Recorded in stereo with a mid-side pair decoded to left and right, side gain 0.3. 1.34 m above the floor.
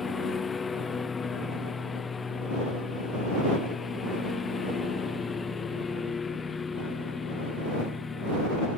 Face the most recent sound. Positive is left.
turn(degrees=45)